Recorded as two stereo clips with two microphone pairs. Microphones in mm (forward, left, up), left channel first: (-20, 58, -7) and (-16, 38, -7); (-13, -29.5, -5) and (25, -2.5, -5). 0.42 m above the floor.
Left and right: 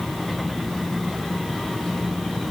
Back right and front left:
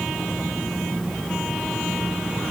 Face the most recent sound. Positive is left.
No sound to turn to.